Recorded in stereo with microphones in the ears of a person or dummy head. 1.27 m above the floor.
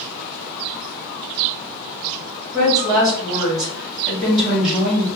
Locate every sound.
2.5 s a woman speaking: 15° right (ahead or behind), 1.6 m